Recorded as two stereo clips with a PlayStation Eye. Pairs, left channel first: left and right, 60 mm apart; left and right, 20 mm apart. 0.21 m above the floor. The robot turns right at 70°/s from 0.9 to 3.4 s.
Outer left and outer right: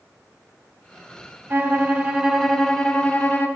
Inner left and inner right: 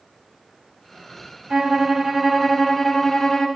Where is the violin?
80° right, 1.2 m; by 3.5 s 55° left, 1.2 m.